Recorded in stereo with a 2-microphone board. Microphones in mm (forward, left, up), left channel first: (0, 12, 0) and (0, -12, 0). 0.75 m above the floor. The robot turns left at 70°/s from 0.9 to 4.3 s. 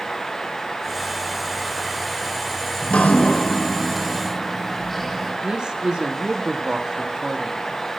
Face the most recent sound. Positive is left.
turn(degrees=-35)  # may be behind; listen again after turning